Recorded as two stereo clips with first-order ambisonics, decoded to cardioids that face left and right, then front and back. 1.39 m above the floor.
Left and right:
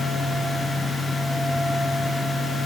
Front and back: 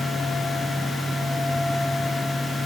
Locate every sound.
Only background noise.